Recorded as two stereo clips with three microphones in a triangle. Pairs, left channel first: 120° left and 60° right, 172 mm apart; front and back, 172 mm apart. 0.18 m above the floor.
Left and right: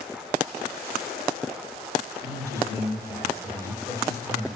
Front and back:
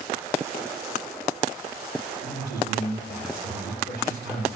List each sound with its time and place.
2.2 s a man speaking: 15° left, 5.5 m